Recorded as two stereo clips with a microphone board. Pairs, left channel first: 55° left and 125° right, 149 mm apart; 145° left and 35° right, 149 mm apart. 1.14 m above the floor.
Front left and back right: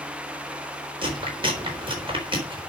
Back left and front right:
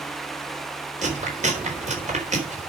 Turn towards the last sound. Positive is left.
turn(degrees=-70)